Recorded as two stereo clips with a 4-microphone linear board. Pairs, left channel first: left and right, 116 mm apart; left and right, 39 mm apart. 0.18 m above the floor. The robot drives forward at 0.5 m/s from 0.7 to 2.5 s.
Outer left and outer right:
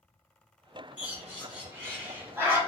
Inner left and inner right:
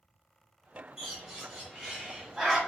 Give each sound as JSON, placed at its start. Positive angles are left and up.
{"t": 1.0, "sound": "a bird", "side_deg": -15, "distance_m": 1.5}